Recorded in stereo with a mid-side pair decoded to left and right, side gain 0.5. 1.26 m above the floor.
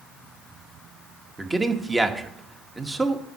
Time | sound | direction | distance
1.4 | a man speaking | 15° right | 1.5 m